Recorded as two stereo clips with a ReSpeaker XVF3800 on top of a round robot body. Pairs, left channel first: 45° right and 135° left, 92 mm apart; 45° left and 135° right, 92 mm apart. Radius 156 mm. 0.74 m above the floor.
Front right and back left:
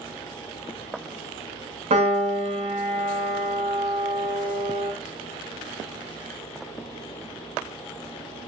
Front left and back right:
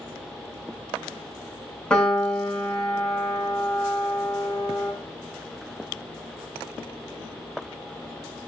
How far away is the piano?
About 0.7 m.